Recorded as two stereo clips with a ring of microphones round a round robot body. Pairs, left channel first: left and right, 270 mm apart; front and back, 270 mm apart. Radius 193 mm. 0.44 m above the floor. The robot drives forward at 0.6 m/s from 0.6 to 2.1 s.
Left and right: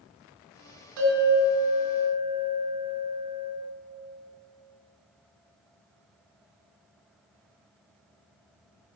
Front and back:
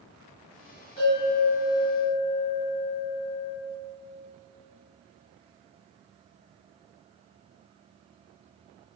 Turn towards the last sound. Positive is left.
turn(degrees=-95)